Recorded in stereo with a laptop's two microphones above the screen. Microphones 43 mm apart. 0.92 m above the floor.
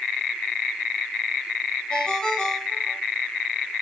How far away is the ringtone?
About 2.5 m.